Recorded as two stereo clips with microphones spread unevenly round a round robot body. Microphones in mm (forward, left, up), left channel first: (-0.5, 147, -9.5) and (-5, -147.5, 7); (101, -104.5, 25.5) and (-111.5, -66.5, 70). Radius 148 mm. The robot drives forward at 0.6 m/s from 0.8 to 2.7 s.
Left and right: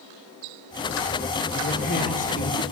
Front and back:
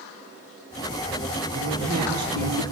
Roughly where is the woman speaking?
Behind left.